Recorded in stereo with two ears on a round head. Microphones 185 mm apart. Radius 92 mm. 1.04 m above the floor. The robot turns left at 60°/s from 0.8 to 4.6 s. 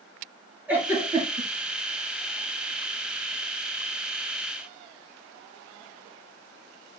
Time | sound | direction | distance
0.7 | a giggle | 5° right (ahead or behind) | 3.5 m